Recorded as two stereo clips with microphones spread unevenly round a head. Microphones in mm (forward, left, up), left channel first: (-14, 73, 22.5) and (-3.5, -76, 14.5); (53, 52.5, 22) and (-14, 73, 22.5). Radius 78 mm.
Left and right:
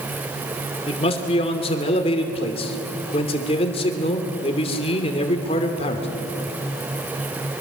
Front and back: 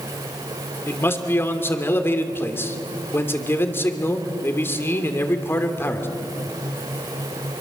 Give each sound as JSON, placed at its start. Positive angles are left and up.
{"t": 0.9, "sound": "a man speaking", "azimuth_deg": 40, "distance_m": 2.5}